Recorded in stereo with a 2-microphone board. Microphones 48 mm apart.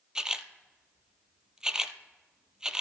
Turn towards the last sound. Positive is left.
turn(degrees=-15)  # may be behind; listen again after turning